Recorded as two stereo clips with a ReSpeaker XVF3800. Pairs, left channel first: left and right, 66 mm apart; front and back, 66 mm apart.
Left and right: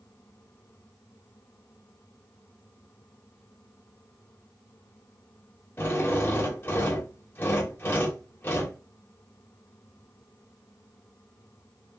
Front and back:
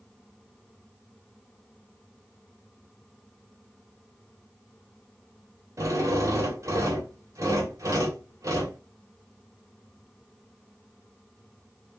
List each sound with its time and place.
5.8 s a drill: 145° left, 2.0 m